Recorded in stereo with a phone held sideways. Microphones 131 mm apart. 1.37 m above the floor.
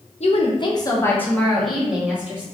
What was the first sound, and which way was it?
A woman speaking, 55° left (ahead or behind).